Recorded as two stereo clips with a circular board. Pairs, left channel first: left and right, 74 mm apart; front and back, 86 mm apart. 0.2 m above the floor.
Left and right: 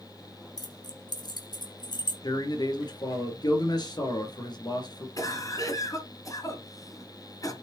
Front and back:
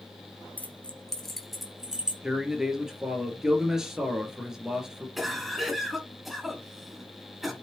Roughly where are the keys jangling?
Left.